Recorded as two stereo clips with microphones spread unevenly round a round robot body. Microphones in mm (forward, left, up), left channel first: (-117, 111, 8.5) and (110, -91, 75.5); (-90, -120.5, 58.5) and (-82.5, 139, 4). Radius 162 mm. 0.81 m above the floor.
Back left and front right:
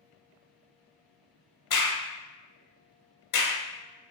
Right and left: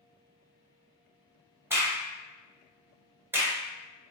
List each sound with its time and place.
1.7 s a crack: 175° left, 1.2 m